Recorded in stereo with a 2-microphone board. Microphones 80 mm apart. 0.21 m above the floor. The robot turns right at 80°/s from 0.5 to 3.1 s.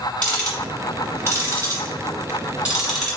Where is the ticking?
10° left (ahead or behind), 1.7 m.